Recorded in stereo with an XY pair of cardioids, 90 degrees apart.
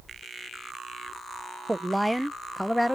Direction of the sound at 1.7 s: 15° right.